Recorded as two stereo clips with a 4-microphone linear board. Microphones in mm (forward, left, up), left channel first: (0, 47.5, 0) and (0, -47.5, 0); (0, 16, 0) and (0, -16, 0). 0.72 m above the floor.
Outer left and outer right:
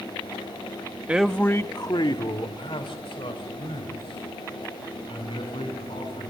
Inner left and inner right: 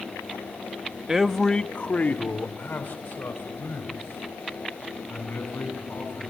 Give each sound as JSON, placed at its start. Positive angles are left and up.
{"t": 1.1, "sound": "a man speaking", "side_deg": -15, "distance_m": 0.9}